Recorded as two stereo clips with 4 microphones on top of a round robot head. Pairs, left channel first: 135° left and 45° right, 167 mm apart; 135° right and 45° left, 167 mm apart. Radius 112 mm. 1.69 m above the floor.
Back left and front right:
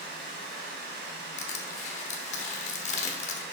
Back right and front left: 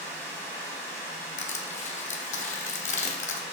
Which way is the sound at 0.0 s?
65° right.